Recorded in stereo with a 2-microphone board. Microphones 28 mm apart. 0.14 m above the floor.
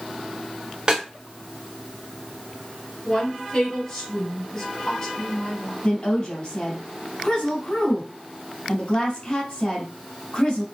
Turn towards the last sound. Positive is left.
turn(degrees=45)  # may be behind; listen again after turning